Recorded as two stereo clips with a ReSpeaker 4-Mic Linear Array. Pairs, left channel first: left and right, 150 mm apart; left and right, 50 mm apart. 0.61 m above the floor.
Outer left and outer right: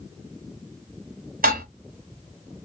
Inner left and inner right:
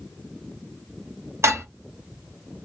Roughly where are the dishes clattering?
Right.